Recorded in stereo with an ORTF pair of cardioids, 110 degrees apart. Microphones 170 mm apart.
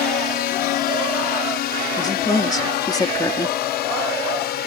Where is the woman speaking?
20° left.